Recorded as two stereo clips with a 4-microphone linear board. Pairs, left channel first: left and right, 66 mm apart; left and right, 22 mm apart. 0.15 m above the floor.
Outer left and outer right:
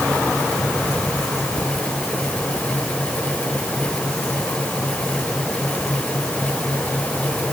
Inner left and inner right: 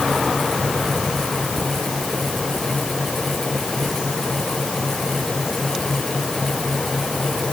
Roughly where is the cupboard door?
I don't hear a cupboard door.